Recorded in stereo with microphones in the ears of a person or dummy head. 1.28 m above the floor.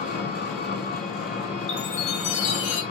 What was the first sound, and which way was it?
An engine running, 45° left (ahead or behind).